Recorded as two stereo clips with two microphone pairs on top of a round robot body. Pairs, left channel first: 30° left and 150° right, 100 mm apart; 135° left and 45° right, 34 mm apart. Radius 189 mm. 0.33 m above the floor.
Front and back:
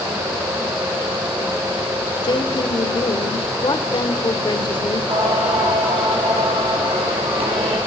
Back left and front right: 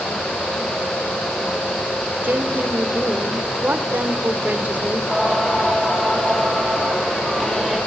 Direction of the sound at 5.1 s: 135° right.